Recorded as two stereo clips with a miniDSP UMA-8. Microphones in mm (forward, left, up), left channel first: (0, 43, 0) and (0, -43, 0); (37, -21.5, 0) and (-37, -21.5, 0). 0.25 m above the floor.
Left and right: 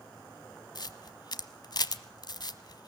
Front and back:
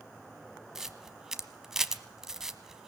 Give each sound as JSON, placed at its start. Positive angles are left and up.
{"t": 0.8, "sound": "a camera shutter", "azimuth_deg": 95, "distance_m": 0.9}